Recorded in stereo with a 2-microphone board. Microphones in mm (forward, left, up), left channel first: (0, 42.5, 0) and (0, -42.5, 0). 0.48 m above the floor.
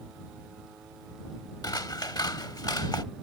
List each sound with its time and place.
1.6 s scissors: 55° left (ahead or behind)